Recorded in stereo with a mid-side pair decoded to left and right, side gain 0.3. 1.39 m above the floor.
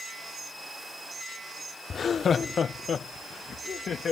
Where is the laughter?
70° left; by 4.1 s 75° left.